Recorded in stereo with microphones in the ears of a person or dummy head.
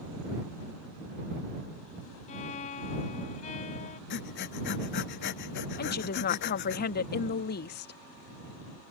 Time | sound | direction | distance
2.3 | a violin | 35° left (ahead or behind) | ?
4.1 | breathing | 60° left (ahead or behind) | ?
5.8 | a woman speaking | 50° left (ahead or behind) | ?